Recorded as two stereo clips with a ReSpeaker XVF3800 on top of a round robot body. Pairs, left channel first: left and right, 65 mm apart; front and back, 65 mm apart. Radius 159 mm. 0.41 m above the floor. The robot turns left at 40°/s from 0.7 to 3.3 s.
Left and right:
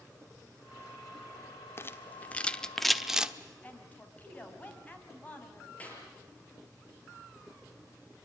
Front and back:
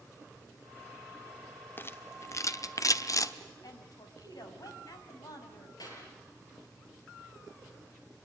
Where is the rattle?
45° left, 1.3 m; by 3.3 s 15° right, 1.3 m.